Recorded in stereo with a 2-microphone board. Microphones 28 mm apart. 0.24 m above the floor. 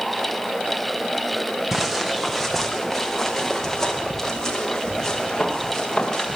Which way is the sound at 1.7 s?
10° right (ahead or behind).